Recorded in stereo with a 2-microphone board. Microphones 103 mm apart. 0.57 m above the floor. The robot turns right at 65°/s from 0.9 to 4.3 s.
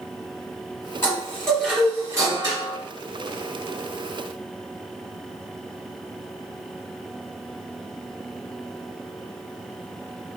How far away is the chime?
About 1.7 m.